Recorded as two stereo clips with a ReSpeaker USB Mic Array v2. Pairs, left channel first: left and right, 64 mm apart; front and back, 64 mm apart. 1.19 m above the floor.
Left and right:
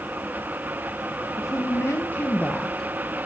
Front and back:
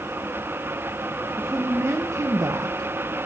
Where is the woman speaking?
130° left, 1.1 m; by 2.9 s 175° left, 0.7 m.